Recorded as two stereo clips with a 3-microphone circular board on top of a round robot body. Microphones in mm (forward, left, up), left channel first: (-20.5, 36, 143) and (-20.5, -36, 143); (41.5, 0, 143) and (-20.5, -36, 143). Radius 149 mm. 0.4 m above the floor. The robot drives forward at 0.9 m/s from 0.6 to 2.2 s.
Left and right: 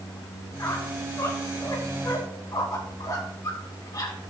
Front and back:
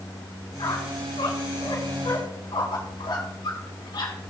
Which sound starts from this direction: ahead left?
A squeak, at 0.6 s.